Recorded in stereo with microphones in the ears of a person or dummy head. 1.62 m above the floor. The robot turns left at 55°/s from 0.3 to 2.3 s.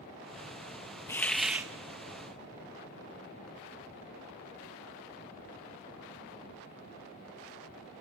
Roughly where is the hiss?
Ahead.